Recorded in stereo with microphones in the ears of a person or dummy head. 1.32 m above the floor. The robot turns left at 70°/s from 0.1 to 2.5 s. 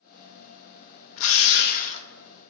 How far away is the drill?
About 1.4 m.